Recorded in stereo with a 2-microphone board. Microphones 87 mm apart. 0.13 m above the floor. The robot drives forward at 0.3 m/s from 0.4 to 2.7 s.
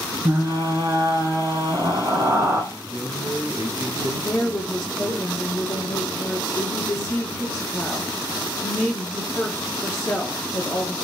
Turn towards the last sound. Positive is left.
turn(degrees=35)  # may be behind; listen again after turning